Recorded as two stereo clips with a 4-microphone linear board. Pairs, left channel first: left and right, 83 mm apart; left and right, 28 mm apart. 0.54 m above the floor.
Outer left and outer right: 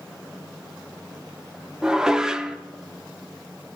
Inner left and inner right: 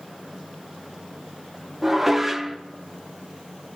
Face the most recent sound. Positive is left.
turn(degrees=-10)  # may be behind; listen again after turning